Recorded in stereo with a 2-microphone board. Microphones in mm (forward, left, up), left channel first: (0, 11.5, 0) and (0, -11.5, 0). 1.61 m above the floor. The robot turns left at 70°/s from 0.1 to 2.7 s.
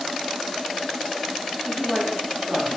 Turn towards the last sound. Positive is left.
turn(degrees=-40)